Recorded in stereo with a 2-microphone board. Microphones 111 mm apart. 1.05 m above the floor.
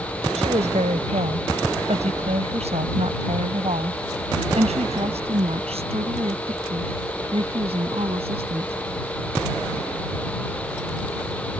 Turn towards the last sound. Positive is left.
turn(degrees=-60)  # may be behind; listen again after turning